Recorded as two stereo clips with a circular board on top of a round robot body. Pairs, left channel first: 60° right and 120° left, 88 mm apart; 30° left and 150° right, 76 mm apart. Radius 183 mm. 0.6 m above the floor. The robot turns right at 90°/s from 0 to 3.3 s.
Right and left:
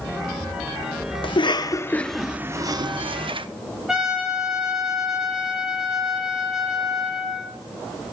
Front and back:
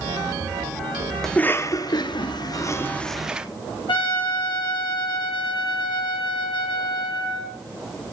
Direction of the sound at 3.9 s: 35° left.